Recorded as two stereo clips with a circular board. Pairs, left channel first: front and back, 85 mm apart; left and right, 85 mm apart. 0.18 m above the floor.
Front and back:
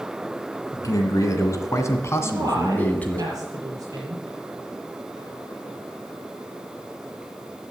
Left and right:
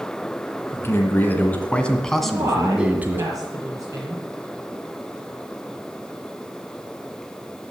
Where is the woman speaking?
135° right, 5 m.